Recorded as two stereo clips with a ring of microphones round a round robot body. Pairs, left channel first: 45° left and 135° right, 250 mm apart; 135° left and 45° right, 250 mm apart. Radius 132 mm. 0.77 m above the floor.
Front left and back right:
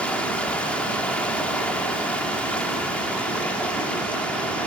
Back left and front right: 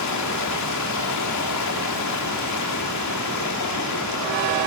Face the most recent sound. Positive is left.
turn(degrees=130)